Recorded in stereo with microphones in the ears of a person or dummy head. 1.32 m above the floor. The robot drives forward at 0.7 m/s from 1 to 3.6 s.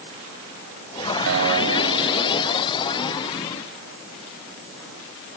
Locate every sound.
1.3 s a guitar: 85° right, 4 m; by 2.7 s 75° right (ahead or behind), 4.5 m